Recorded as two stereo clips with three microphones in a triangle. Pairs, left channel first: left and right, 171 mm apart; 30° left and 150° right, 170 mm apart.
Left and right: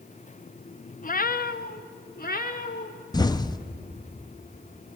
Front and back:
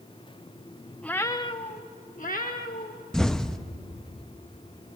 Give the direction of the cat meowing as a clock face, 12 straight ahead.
8 o'clock.